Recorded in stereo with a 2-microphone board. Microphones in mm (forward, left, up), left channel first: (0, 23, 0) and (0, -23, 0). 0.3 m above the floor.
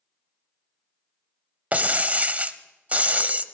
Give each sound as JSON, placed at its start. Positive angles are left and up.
{"t": 1.7, "sound": "breaking glass", "side_deg": -35, "distance_m": 0.8}